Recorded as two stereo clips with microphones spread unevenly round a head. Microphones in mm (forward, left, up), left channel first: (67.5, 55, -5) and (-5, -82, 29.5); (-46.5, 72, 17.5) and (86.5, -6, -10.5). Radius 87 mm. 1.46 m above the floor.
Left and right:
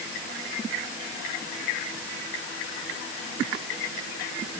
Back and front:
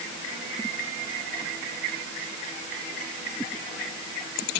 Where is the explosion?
No explosion in this recording.